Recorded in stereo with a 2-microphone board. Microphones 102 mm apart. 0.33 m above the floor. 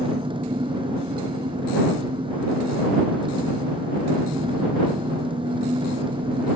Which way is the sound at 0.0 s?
55° right (ahead or behind).